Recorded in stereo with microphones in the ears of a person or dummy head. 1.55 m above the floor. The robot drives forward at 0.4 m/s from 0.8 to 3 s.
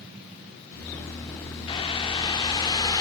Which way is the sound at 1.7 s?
25° left (ahead or behind).